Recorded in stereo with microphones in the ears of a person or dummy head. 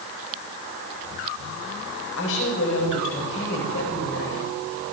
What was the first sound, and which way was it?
A woman speaking, 80° left.